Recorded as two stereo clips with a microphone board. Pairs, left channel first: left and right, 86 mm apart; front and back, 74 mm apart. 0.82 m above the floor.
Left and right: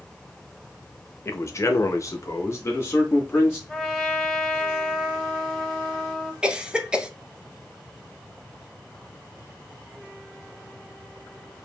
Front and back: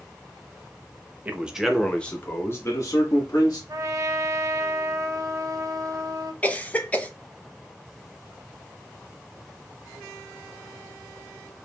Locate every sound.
1.2 s a man speaking: 125° left, 0.7 m; by 3.6 s 25° left, 1.3 m
3.7 s a trumpet: 175° left, 0.8 m
6.4 s a cough: 30° right, 0.6 m